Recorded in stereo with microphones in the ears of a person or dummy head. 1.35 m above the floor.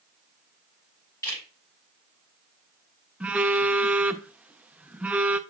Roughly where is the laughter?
No laughter in this recording.